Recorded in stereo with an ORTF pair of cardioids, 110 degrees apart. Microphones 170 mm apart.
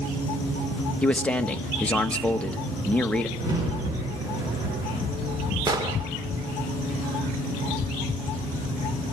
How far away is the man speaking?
About 1.2 m.